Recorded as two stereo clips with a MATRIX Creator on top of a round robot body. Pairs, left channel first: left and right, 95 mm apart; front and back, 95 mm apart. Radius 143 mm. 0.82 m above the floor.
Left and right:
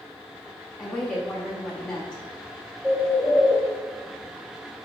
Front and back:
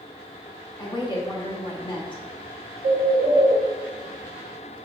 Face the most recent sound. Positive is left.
turn(degrees=-175)